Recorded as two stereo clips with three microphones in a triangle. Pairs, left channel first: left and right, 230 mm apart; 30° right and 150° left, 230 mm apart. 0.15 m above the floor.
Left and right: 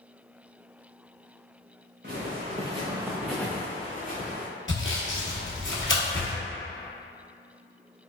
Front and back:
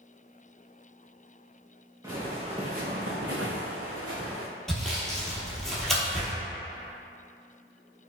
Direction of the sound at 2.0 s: 135° right.